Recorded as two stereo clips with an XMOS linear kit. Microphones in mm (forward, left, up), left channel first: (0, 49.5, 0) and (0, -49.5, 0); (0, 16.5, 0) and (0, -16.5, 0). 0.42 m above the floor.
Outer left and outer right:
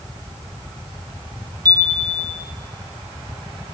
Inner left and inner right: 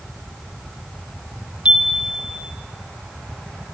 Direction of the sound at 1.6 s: 35° right (ahead or behind).